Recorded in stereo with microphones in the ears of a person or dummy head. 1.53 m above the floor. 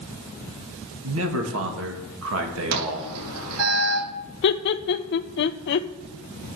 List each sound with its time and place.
1.0 s a man speaking: 80° right, 2 m
2.7 s an alarm: 75° right (ahead or behind), 5.5 m
4.4 s laughter: 60° left (ahead or behind), 0.8 m